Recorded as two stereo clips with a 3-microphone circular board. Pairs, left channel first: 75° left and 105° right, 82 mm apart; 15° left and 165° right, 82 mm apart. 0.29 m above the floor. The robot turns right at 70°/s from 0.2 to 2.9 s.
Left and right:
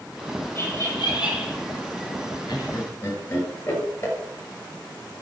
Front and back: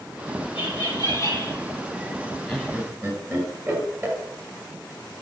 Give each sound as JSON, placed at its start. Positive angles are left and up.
{"t": 0.6, "sound": "laughter", "azimuth_deg": 15, "distance_m": 8.0}
{"t": 2.5, "sound": "laughter", "azimuth_deg": 110, "distance_m": 6.5}